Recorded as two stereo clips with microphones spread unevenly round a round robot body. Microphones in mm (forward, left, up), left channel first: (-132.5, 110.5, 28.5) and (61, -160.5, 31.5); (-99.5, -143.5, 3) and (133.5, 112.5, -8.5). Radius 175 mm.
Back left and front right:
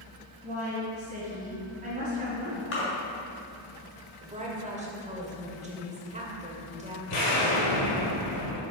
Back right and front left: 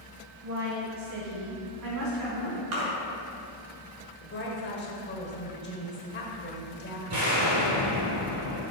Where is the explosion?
100° left, 2.5 m.